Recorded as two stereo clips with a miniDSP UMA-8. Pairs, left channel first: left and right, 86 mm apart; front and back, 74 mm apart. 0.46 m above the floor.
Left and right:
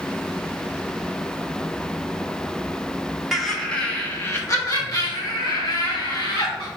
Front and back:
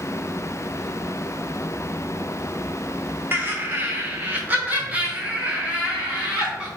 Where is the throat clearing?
I don't hear throat clearing.